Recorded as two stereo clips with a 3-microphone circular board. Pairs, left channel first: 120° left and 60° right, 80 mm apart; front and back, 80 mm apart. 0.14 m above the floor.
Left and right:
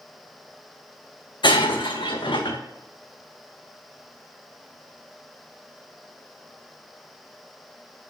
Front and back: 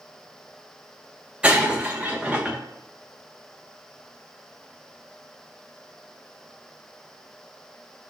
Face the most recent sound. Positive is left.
turn(degrees=105)